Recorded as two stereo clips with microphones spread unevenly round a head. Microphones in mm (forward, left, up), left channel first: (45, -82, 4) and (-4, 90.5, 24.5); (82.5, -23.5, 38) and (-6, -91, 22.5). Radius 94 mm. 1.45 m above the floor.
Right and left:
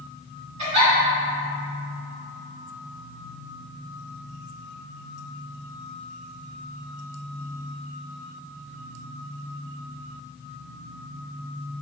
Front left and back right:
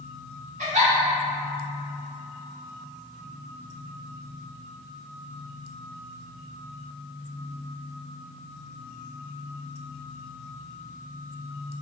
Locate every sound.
0.6 s a giggle: 160° left, 1.9 m